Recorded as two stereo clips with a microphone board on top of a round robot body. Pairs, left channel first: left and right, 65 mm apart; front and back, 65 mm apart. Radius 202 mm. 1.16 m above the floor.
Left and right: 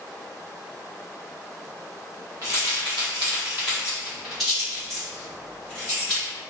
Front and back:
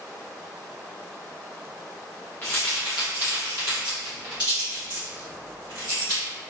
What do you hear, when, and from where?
2.4 s keys jangling: 65° right, 0.7 m; by 6.2 s 170° left, 2 m